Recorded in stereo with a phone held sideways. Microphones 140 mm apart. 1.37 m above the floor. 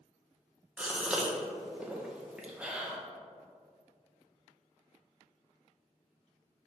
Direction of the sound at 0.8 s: 5° right (ahead or behind).